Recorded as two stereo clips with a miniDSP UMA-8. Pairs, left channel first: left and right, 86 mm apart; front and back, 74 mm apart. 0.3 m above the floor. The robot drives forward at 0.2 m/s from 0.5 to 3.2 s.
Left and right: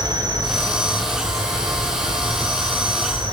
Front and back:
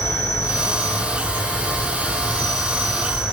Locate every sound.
0.0 s an insect: 55° right, 0.8 m; by 3.3 s 95° right, 0.6 m